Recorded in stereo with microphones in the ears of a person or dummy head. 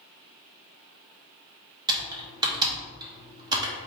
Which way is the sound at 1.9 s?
20° right (ahead or behind).